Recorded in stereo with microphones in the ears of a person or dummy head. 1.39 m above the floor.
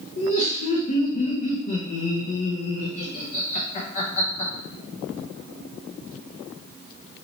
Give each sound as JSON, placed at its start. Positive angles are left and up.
{"t": 0.2, "sound": "laughter", "side_deg": 40, "distance_m": 0.7}